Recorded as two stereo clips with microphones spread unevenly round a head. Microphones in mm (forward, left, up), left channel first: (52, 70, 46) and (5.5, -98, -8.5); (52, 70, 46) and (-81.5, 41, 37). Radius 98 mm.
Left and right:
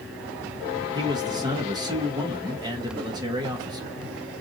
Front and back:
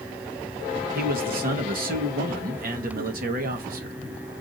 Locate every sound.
0.9 s a man speaking: 170° right, 1.2 m